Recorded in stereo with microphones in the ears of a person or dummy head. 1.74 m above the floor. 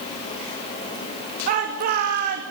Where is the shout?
55° right (ahead or behind), 2 m.